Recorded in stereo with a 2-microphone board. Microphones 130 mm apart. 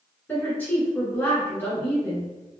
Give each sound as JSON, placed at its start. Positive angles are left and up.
{"t": 0.3, "sound": "a woman speaking", "side_deg": 15, "distance_m": 1.4}